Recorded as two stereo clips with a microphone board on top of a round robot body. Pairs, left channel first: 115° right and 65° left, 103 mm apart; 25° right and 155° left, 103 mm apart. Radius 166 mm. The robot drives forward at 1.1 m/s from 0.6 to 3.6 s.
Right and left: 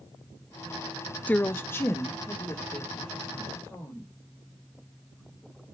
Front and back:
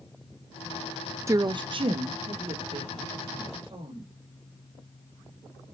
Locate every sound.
1.3 s a woman speaking: 175° right, 0.5 m; by 4.1 s straight behind, 3 m